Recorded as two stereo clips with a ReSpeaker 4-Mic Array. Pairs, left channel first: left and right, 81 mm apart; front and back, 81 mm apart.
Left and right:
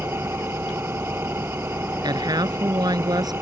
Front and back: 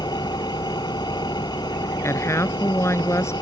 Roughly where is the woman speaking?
Ahead right.